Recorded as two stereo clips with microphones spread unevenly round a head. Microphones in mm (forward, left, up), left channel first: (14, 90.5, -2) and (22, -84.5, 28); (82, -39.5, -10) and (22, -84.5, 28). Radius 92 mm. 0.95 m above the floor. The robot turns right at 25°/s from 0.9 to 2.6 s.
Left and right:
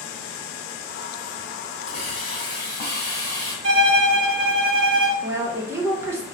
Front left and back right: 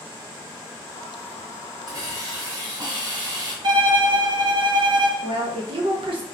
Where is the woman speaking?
170° right, 0.7 m.